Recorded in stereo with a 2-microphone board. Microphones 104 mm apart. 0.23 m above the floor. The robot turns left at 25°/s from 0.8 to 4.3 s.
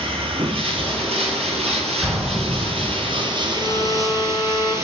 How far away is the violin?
About 1.6 m.